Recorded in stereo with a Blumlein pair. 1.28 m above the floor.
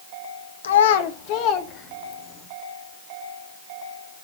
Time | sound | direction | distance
0.6 | a child speaking | 65° left | 1.6 m